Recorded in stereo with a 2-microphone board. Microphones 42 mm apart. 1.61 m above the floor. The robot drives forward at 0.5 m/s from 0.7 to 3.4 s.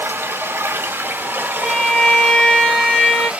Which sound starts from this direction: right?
Running water, at 0.0 s.